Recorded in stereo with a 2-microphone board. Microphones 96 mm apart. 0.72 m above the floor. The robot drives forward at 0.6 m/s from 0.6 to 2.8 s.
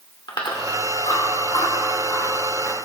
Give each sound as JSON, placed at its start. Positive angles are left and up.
{"t": 0.3, "sound": "chewing", "side_deg": 55, "distance_m": 2.5}